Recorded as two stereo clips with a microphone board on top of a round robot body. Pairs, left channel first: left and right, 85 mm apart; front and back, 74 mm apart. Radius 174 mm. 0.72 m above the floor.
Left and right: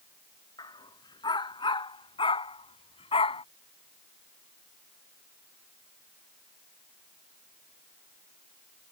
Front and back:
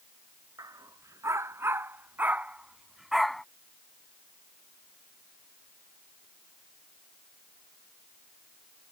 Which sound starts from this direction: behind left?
A dog barking, at 0.6 s.